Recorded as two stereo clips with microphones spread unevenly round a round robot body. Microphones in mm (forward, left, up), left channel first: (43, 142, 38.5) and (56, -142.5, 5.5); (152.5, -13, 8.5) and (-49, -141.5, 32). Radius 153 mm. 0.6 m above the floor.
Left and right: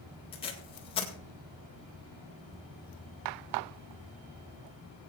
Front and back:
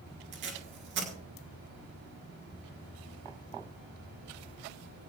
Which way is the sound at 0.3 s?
165° left.